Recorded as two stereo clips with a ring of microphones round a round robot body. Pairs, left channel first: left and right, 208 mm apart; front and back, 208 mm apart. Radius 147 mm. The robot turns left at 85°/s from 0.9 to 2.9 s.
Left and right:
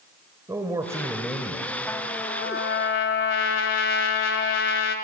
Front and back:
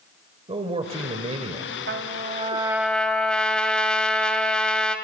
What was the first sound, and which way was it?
A man speaking, 150° right.